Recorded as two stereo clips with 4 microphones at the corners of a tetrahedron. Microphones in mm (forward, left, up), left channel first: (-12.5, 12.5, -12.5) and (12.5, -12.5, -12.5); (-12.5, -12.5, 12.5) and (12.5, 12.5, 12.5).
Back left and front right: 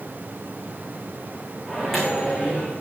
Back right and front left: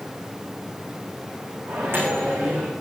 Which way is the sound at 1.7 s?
45° left.